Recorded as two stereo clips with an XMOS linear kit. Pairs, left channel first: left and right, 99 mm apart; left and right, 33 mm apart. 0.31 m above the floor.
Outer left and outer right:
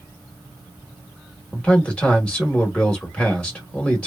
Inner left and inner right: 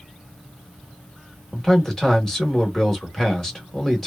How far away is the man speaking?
About 1.0 m.